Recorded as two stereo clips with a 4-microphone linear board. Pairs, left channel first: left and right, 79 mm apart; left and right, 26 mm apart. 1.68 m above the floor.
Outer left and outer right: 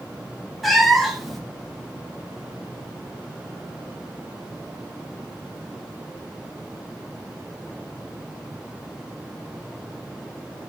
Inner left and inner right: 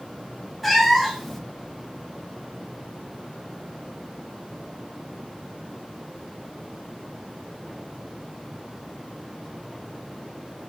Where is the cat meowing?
Centre (ahead or behind), 1.0 m.